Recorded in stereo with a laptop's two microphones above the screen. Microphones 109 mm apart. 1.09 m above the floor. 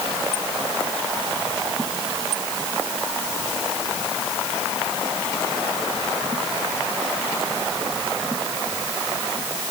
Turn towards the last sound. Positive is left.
No sound to turn to.